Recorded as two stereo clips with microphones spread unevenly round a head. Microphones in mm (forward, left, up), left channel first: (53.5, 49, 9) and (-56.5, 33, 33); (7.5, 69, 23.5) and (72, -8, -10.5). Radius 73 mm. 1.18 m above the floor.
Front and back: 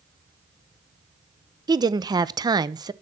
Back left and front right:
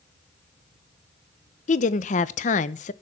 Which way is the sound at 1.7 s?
130° left.